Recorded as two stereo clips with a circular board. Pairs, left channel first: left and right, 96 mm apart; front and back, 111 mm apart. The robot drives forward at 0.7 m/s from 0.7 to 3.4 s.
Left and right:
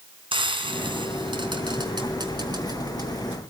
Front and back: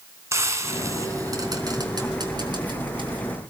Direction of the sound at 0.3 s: 115° right.